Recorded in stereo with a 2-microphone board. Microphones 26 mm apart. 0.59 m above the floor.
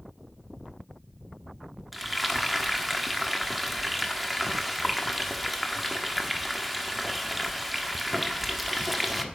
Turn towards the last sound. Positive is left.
turn(degrees=-5)  # may be behind; listen again after turning